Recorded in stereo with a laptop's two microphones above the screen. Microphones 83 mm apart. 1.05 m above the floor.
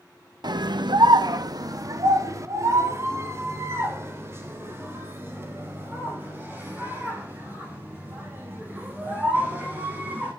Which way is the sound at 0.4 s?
60° right (ahead or behind).